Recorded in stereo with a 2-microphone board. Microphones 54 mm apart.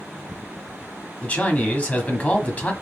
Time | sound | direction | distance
1.2 | a man speaking | 25° left (ahead or behind) | 1.2 m